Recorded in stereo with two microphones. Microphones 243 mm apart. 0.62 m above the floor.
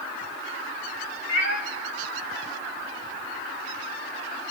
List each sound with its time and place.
1.3 s a cat meowing: 50° left (ahead or behind), 0.9 m